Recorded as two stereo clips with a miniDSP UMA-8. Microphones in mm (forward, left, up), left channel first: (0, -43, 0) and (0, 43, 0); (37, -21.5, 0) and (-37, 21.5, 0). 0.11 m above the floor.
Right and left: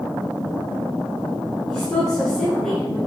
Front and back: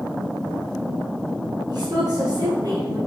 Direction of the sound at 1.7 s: 175° right.